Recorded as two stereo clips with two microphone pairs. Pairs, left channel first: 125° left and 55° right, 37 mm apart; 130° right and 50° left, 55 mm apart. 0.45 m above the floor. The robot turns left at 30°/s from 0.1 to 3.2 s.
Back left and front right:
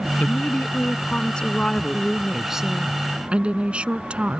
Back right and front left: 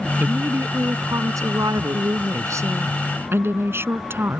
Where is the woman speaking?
95° left; by 4.4 s 5° left.